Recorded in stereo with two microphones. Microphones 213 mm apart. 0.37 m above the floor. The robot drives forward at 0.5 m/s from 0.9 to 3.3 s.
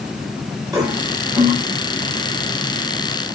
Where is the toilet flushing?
15° right (ahead or behind), 5.5 m.